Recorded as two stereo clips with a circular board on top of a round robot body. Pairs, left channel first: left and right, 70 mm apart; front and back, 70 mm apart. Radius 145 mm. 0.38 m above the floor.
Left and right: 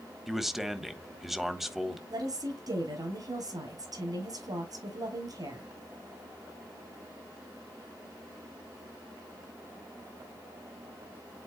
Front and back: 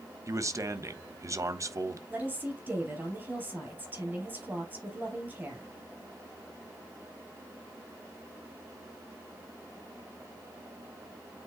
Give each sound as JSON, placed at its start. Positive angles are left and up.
{"t": 0.3, "sound": "a man speaking", "azimuth_deg": -175, "distance_m": 1.3}
{"t": 2.1, "sound": "a woman speaking", "azimuth_deg": -115, "distance_m": 5.5}